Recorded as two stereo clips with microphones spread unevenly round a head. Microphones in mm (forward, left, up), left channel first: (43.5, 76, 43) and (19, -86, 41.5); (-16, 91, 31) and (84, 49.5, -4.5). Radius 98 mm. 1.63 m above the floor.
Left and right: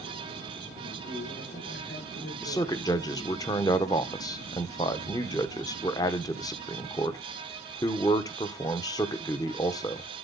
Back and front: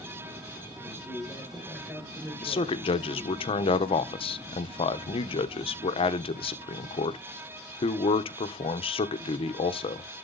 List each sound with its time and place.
0.8 s a man speaking: 65° left, 6 m
2.4 s a man speaking: 150° left, 0.9 m